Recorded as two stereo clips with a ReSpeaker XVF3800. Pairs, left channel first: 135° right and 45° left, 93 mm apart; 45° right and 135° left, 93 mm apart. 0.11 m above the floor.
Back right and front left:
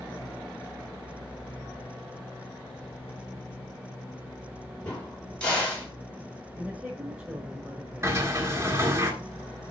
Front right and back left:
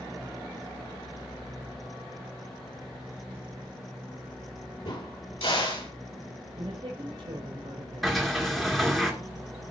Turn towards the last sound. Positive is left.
turn(degrees=45)